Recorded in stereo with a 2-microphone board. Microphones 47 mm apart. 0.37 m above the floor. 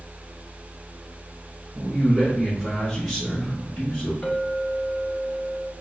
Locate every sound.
1.8 s a man speaking: 15° right (ahead or behind), 1.3 m; by 4.1 s 30° left (ahead or behind), 1.7 m
4.2 s a clink: 30° left (ahead or behind), 1.1 m